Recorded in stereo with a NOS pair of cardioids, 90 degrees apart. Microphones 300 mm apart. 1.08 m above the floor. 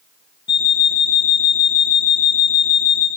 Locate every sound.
0.5 s an alarm clock: 35° left, 0.9 m